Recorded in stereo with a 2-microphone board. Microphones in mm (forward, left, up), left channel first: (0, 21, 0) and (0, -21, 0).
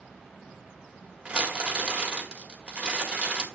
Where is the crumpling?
30° right (ahead or behind), 1.9 m.